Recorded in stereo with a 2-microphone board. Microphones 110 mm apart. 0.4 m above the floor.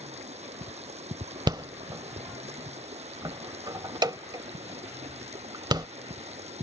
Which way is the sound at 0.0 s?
80° right.